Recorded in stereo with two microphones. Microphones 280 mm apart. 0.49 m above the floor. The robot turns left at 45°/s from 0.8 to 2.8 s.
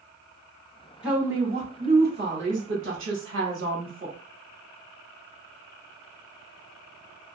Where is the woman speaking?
5° right, 1.2 m; by 4.2 s 85° right, 1.2 m.